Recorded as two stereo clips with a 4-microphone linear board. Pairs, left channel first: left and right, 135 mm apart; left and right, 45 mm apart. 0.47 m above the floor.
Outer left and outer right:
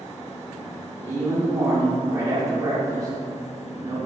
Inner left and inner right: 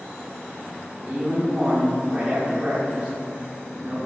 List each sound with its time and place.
1.0 s a man speaking: 25° right (ahead or behind), 0.8 m